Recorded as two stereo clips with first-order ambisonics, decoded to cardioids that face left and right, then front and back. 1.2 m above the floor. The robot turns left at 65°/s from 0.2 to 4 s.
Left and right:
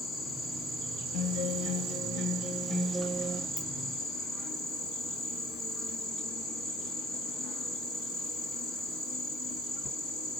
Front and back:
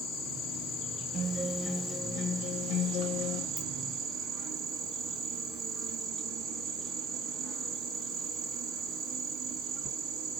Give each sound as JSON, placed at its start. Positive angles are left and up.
{"t": 0.0, "sound": "an insect", "azimuth_deg": 5, "distance_m": 1.8}
{"t": 1.1, "sound": "a guitar", "azimuth_deg": 110, "distance_m": 0.7}
{"t": 3.6, "sound": "a ringtone", "azimuth_deg": 90, "distance_m": 1.4}